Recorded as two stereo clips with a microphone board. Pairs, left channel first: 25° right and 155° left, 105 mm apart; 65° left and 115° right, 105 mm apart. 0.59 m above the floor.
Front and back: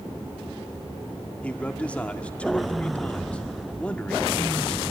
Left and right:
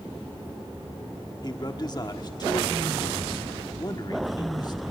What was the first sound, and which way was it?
A man speaking, 50° left.